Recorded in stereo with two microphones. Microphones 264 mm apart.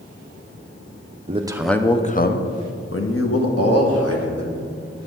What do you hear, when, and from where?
1.3 s a man speaking: 25° right (ahead or behind), 0.6 m; by 4.6 s 70° left (ahead or behind), 2.5 m